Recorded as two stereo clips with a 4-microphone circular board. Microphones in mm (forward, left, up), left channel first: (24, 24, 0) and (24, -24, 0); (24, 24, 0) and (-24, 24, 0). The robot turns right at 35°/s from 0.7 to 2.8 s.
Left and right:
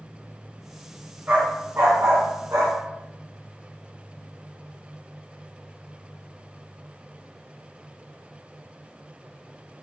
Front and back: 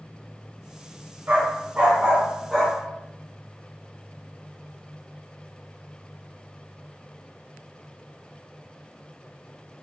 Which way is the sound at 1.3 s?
140° right.